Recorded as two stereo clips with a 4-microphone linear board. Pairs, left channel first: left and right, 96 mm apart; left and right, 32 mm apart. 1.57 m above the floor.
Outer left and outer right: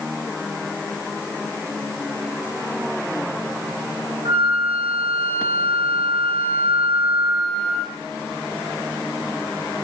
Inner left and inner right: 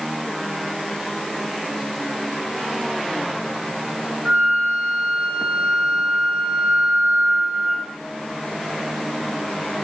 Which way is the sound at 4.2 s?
70° right (ahead or behind).